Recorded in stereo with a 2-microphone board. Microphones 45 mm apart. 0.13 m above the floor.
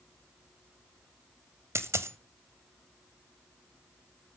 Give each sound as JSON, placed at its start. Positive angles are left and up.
{"t": 1.8, "sound": "a dropped coin", "side_deg": -75, "distance_m": 1.0}